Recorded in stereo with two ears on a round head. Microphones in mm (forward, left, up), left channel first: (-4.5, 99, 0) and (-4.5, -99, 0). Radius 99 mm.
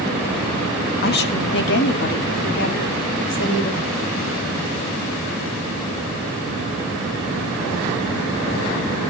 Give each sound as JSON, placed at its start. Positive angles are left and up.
{"t": 1.0, "sound": "a woman speaking", "side_deg": 45, "distance_m": 1.8}